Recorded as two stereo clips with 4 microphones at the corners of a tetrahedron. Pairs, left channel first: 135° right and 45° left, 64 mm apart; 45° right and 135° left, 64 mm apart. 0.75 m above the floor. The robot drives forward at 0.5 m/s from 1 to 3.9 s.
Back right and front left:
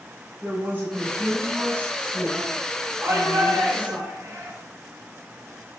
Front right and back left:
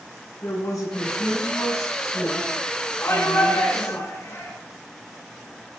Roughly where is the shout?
Ahead.